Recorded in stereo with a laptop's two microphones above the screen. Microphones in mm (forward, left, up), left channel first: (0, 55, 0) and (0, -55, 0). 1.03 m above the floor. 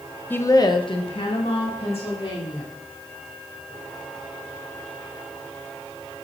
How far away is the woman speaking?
About 0.5 m.